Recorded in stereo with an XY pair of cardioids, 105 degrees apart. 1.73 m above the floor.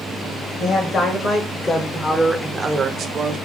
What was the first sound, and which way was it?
A woman speaking, 60° left.